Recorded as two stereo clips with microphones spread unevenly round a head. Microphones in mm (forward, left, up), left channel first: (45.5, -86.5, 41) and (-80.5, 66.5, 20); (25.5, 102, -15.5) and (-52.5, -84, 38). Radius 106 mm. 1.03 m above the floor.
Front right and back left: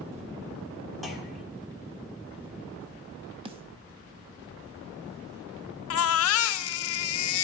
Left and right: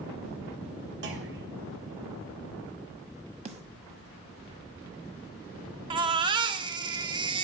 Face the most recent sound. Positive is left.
turn(degrees=-40)